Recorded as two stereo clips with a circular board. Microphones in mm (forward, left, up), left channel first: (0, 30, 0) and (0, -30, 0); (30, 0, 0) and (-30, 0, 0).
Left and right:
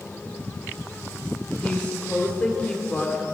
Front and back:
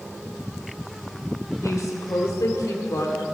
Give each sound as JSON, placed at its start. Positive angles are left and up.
{"t": 1.6, "sound": "a woman speaking", "azimuth_deg": 20, "distance_m": 1.7}